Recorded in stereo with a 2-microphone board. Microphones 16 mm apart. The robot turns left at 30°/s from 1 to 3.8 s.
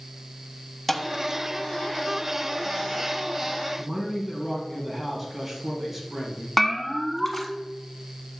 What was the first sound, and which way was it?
A thud, 5° left (ahead or behind).